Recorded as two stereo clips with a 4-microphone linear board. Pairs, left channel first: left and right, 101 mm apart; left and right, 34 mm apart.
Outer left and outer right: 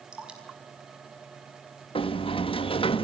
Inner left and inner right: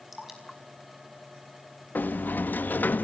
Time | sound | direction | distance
0.1 | dripping | 10° right (ahead or behind) | 5 m
1.9 | a sliding door | 65° left (ahead or behind) | 1.4 m